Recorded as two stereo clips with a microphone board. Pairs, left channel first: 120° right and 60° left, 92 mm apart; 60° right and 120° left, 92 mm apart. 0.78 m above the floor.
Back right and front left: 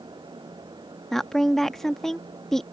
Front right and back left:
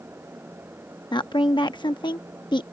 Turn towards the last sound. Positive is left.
turn(degrees=-35)